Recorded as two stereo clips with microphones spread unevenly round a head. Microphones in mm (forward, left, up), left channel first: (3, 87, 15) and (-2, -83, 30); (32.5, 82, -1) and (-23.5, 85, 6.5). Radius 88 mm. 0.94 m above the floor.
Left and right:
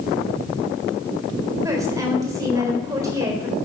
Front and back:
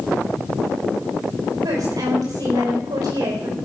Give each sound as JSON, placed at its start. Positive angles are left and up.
{"t": 1.6, "sound": "a woman speaking", "azimuth_deg": -165, "distance_m": 4.0}